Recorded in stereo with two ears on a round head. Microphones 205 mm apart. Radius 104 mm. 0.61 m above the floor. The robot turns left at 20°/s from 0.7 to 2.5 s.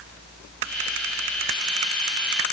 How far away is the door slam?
No door slam in this recording.